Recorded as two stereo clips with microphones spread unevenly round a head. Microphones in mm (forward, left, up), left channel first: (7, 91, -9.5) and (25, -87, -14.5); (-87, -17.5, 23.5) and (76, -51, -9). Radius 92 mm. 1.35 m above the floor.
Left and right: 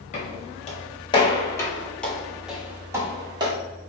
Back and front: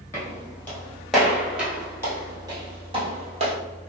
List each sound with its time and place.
0.1 s footsteps: 115° left, 1.7 m; by 3.5 s 45° right, 1.5 m